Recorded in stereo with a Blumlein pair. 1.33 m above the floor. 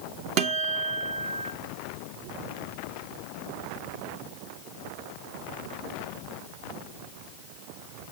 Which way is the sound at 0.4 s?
40° right.